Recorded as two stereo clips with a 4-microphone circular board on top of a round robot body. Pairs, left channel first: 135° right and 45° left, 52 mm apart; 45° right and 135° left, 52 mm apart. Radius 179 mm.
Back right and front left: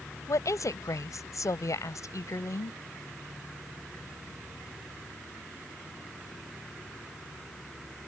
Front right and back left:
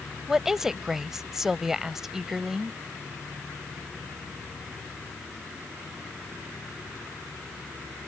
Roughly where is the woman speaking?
Behind right.